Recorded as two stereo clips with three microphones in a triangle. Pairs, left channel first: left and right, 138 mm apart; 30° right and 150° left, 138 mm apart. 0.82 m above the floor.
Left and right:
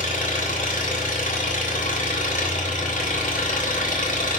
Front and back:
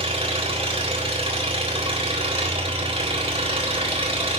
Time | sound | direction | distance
0.0 | an engine running | 105° left | 3.5 m